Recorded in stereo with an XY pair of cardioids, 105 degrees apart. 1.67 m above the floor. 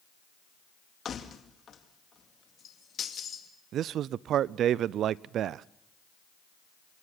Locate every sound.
1.1 s keys jangling: 50° left, 2 m
3.7 s a man speaking: 70° right, 0.5 m